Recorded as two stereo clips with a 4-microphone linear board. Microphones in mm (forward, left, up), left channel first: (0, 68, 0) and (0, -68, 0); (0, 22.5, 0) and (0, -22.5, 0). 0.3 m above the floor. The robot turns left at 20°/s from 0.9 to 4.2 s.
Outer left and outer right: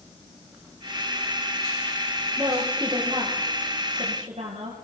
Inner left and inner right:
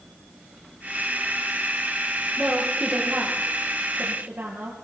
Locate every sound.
2.4 s a woman speaking: 15° right (ahead or behind), 6.5 m; by 4.8 s 50° right (ahead or behind), 6.5 m